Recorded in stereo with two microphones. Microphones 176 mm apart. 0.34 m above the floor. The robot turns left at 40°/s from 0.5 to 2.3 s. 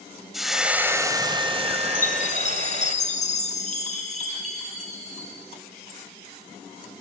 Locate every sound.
0.3 s frying: straight ahead, 1.7 m; by 3.0 s 75° right, 1.7 m
1.9 s a chime: 55° left (ahead or behind), 3 m; by 5.3 s 45° left (ahead or behind), 3 m